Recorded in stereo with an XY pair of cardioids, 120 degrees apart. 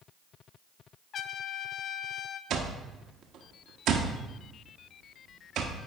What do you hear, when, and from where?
1.1 s a trumpet: 55° left, 0.6 m
2.5 s an alarm clock: 70° right, 1.2 m